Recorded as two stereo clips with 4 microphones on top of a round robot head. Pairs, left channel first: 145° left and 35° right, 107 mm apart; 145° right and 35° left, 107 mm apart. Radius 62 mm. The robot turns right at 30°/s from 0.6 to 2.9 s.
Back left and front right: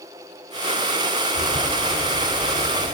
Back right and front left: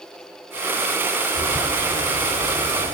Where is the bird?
15° left, 2 m; by 2.9 s 65° left, 2 m.